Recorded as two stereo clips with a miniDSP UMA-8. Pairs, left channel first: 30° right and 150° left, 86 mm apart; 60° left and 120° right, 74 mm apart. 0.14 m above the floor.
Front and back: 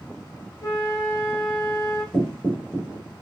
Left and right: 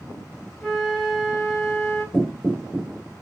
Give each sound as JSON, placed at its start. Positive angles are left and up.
{"t": 0.6, "sound": "a flute", "azimuth_deg": -35, "distance_m": 1.9}
{"t": 2.1, "sound": "knocking", "azimuth_deg": 175, "distance_m": 0.8}